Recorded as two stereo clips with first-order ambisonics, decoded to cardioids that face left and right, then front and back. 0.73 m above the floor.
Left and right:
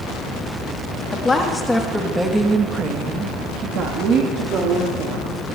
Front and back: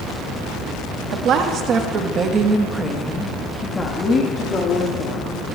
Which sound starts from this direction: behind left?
A woman speaking, at 1.1 s.